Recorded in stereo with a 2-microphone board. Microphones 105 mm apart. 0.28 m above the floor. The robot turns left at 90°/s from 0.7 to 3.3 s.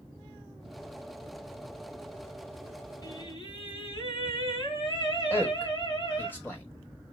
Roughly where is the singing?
Left.